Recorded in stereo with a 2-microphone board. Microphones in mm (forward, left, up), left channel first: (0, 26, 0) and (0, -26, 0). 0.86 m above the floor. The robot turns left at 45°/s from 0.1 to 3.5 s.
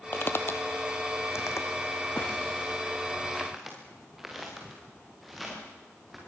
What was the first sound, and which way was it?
Footsteps, 45° left (ahead or behind).